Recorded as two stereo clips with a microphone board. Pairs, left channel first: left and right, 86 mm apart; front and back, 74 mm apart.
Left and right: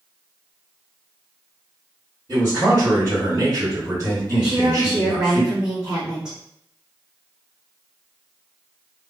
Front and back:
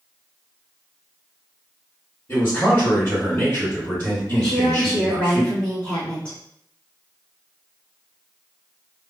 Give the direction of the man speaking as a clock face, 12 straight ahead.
1 o'clock.